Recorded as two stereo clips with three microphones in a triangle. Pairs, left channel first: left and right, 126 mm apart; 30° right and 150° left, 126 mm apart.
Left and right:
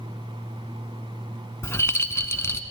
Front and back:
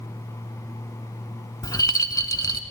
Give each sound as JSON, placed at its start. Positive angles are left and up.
{"t": 1.6, "sound": "a rattle", "azimuth_deg": 25, "distance_m": 0.8}